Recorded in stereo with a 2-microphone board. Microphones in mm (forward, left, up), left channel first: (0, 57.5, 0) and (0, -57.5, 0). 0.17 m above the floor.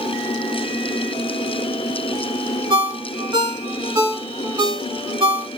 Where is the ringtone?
40° right (ahead or behind), 0.7 m.